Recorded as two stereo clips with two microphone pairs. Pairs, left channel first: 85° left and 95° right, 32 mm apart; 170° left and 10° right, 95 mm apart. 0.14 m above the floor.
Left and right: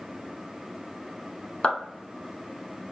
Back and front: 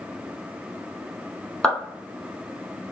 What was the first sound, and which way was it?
A clap, 100° left.